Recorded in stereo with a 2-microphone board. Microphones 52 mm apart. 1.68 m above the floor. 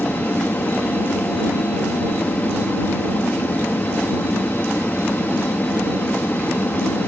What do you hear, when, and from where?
0.0 s an aircraft: 40° left (ahead or behind)